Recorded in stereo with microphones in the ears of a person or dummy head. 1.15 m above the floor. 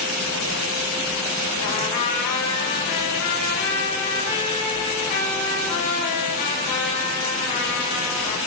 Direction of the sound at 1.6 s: 50° left (ahead or behind).